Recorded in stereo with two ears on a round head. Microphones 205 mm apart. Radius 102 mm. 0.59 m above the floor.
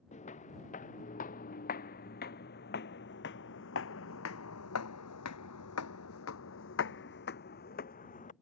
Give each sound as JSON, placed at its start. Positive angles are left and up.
{"t": 0.1, "sound": "footsteps", "side_deg": 30}